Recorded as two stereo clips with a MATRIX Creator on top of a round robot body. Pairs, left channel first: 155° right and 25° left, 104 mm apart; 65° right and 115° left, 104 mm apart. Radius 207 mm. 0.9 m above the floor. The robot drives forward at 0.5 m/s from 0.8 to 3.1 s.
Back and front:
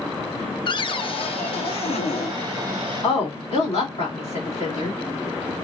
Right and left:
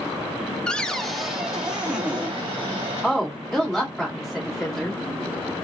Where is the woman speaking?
155° right, 2.5 m.